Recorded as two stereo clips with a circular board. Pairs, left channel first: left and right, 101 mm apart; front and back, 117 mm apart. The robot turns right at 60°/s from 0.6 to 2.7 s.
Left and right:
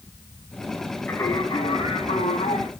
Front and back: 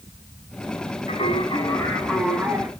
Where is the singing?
20° left, 6 m; by 2.7 s 120° left, 6 m.